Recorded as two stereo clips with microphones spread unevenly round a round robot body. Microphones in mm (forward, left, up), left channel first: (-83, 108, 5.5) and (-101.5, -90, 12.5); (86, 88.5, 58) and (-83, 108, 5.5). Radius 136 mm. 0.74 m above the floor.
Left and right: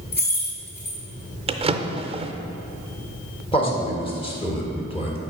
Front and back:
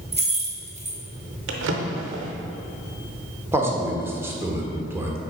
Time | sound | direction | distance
0.1 | keys jangling | 125° left | 1.8 m
1.5 | a drawer | 150° right | 0.5 m
3.5 | a man speaking | 130° left | 1.2 m